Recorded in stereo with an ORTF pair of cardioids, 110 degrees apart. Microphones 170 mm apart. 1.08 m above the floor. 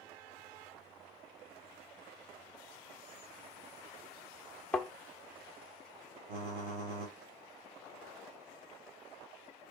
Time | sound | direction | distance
4.7 | a thud | 10° left | 1.3 m
6.3 | typing on a keyboard | 70° right | 2.5 m